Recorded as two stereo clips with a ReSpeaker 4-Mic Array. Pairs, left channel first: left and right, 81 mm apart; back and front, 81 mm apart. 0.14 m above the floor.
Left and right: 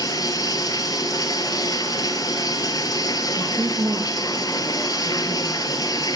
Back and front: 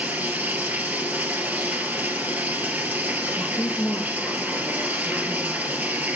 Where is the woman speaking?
95° right, 2.5 m.